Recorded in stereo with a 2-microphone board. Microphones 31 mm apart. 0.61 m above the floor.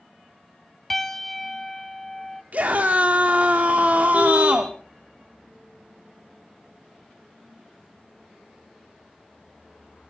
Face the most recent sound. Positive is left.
turn(degrees=-45)  # may be behind; listen again after turning